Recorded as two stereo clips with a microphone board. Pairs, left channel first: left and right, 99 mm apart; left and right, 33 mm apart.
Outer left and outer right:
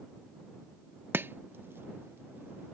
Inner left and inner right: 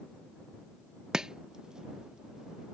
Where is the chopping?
20° right (ahead or behind).